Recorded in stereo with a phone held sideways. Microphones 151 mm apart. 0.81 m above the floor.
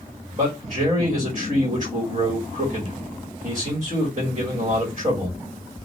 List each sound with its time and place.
0.3 s a man speaking: 50° right (ahead or behind), 1.6 m